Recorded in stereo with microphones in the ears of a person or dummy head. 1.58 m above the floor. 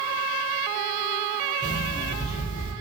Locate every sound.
1.6 s an alarm clock: 25° left (ahead or behind), 0.7 m